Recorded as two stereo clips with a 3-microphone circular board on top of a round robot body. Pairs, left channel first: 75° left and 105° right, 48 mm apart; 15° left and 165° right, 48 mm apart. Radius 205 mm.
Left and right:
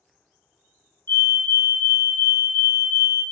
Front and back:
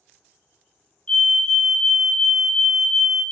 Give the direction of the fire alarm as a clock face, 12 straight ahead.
9 o'clock.